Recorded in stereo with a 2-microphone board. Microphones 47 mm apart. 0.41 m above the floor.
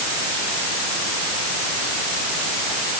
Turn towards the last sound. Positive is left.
No sound to turn to.